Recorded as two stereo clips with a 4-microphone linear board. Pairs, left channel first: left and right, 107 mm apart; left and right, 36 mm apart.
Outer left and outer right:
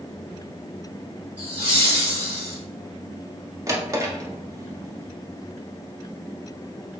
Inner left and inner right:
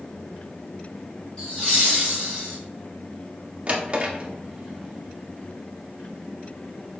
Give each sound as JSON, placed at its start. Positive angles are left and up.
{"t": 1.4, "sound": "laughter", "side_deg": 25, "distance_m": 1.5}
{"t": 3.7, "sound": "a drawer", "side_deg": -30, "distance_m": 0.5}